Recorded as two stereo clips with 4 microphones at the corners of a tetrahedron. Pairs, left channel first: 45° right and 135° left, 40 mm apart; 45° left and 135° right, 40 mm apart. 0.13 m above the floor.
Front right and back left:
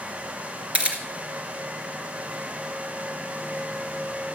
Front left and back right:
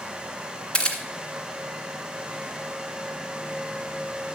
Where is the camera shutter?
95° left, 1.9 m.